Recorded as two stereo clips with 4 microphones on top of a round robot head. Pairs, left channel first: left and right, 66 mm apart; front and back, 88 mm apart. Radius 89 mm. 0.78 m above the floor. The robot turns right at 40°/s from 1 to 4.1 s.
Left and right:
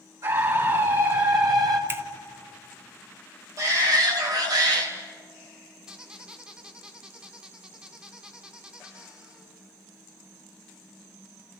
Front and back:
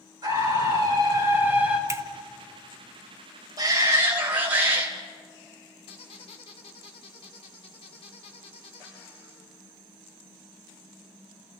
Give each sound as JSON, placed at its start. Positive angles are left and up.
{"t": 0.2, "sound": "a scream", "azimuth_deg": -130, "distance_m": 7.5}
{"t": 1.9, "sound": "a finger snap", "azimuth_deg": -135, "distance_m": 1.3}
{"t": 3.6, "sound": "a shout", "azimuth_deg": -130, "distance_m": 4.5}
{"t": 5.9, "sound": "a squeak", "azimuth_deg": -15, "distance_m": 3.0}